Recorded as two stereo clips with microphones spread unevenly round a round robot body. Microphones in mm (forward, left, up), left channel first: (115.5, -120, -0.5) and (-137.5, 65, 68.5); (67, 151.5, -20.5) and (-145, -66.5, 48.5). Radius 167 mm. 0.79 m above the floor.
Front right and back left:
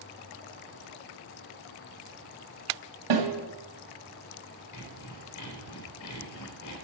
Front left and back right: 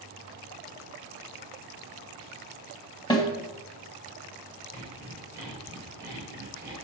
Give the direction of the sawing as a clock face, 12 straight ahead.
2 o'clock.